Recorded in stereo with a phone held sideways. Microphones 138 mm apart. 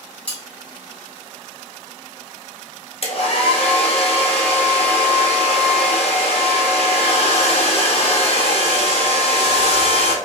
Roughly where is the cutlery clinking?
Centre.